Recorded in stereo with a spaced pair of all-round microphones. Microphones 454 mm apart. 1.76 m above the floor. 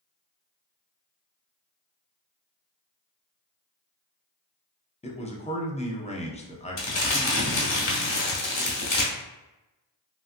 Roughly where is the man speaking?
Centre.